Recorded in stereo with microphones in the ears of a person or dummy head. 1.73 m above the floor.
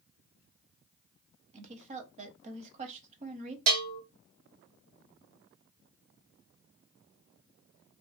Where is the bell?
75° right (ahead or behind), 1.3 m.